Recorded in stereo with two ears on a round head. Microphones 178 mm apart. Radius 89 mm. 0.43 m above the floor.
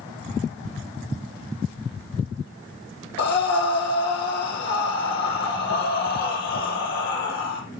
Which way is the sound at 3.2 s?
55° left (ahead or behind).